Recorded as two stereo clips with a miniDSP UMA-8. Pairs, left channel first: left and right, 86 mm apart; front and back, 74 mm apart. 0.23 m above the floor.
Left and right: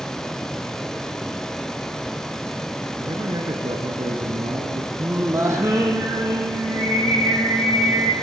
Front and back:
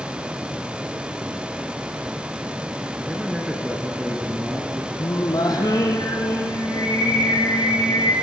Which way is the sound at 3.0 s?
95° right.